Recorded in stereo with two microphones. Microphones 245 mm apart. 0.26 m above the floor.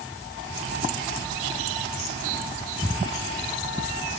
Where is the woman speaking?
No woman speaking in this recording.